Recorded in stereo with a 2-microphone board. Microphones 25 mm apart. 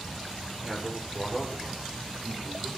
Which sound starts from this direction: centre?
A man speaking, at 0.6 s.